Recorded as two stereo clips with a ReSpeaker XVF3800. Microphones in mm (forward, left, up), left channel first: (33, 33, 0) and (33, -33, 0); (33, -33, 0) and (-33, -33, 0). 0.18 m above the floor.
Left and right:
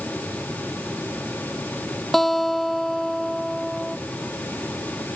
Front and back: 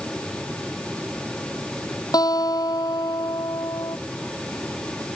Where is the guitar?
5° left.